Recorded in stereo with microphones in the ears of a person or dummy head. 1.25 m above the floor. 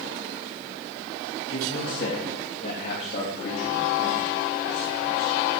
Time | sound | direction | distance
1.5 | a man speaking | 45° left (ahead or behind) | 1.8 m